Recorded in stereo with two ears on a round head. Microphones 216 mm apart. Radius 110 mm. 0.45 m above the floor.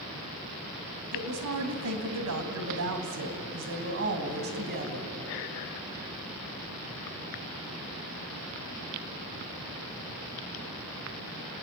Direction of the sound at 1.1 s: 70° right (ahead or behind).